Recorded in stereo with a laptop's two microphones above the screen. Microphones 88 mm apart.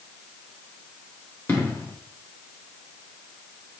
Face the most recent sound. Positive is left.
turn(degrees=25)  # may be behind; listen again after turning